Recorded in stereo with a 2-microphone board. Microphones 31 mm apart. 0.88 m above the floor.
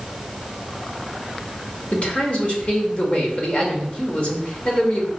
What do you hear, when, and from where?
1.9 s a man speaking: 40° left (ahead or behind), 2.5 m